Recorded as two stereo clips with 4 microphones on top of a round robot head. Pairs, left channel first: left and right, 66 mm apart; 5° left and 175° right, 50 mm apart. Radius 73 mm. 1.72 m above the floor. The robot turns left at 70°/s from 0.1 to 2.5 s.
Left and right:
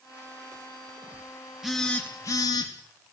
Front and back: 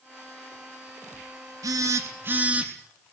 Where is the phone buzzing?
175° right, 3 m; by 2.7 s 125° left, 3 m.